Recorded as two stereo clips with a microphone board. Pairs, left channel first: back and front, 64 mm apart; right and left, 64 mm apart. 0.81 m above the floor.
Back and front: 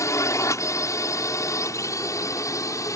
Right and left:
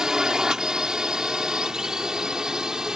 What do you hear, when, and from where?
0.0 s a drone: 170° left